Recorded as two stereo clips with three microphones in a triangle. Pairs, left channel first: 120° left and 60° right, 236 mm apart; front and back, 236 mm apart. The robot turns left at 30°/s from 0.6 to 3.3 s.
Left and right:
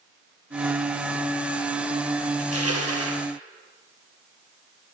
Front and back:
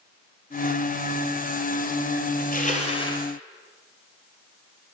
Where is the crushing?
50° right, 2.5 m; by 3.2 s 75° right, 2.5 m.